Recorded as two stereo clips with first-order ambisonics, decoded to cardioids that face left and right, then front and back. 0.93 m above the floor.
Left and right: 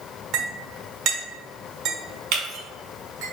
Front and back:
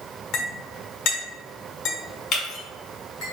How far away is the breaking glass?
About 2.0 m.